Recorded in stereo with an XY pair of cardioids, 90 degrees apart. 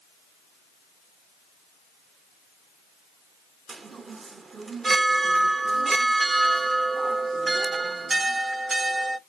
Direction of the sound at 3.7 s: 40° right.